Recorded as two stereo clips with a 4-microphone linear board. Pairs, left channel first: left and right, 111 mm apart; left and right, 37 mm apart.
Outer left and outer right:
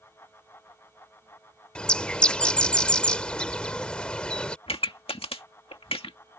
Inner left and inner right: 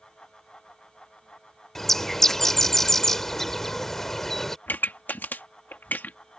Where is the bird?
10° left (ahead or behind).